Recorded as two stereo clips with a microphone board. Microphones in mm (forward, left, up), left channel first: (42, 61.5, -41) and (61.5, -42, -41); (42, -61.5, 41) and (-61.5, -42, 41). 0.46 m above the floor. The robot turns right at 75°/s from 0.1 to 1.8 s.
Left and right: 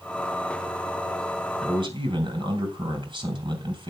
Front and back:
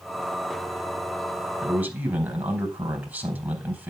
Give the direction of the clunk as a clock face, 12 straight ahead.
I don't hear a clunk.